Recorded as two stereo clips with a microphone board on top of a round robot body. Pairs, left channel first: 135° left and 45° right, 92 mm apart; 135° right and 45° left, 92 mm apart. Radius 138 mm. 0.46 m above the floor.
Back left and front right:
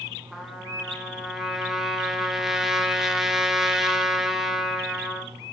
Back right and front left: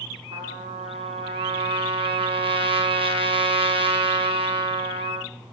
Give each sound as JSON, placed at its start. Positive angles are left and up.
{"t": 0.3, "sound": "a trumpet", "azimuth_deg": 40, "distance_m": 1.6}